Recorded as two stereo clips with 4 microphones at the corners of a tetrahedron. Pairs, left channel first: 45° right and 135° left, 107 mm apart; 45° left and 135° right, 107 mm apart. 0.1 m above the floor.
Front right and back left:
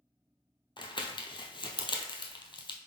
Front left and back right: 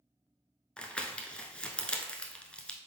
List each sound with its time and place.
0.8 s crumpling: 30° right, 0.6 m